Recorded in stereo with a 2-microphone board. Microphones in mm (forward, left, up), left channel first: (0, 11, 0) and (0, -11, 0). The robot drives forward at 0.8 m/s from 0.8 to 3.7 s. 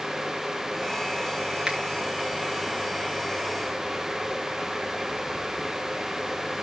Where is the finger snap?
40° right (ahead or behind), 5.5 m.